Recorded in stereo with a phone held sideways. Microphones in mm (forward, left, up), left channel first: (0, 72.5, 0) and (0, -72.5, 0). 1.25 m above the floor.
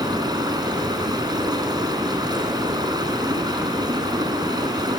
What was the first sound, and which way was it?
Running water, 30° right (ahead or behind).